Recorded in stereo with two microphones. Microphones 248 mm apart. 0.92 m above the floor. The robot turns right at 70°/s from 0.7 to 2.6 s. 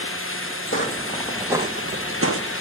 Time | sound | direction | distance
0.7 | footsteps | 55° left (ahead or behind) | 3 m